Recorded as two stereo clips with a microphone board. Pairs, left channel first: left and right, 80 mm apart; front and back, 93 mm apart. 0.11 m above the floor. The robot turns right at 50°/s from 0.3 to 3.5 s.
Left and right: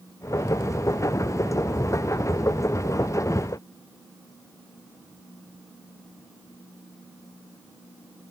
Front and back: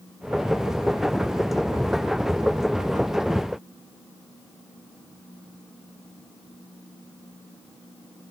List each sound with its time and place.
Only background noise.